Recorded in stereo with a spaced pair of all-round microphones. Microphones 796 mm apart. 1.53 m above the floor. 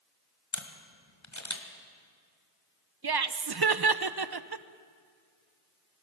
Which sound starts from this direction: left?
A camera shutter, at 0.5 s.